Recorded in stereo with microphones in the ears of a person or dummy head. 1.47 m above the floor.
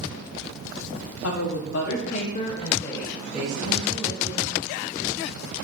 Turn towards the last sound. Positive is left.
turn(degrees=-25)  # may be behind; listen again after turning